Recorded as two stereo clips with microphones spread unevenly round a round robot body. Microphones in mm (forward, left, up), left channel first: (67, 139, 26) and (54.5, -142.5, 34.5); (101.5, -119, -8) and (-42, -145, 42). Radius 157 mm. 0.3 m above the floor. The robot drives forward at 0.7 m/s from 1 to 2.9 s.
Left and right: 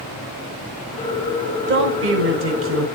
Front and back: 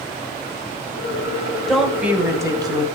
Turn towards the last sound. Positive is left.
turn(degrees=-105)